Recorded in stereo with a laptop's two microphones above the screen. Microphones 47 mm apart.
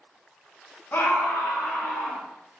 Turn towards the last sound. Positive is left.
turn(degrees=70)  # may be behind; listen again after turning